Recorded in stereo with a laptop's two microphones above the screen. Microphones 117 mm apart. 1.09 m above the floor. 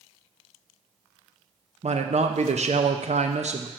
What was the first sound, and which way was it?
A man speaking, 65° right (ahead or behind).